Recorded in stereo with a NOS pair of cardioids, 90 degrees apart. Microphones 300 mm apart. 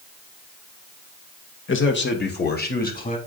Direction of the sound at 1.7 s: 40° left.